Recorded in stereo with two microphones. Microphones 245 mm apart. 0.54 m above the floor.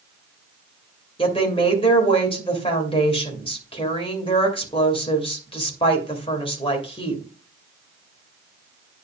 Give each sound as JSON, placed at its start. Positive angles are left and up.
{"t": 1.2, "sound": "a woman speaking", "side_deg": 20, "distance_m": 2.5}